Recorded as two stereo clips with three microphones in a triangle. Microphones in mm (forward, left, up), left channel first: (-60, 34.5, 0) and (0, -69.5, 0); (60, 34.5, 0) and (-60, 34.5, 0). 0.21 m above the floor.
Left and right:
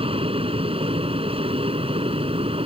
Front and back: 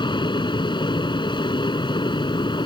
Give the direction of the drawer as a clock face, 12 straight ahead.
No drawer in this recording.